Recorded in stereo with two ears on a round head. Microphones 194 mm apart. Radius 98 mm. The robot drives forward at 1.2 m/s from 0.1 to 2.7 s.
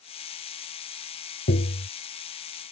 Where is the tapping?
45° left (ahead or behind); by 1.9 s 50° left (ahead or behind).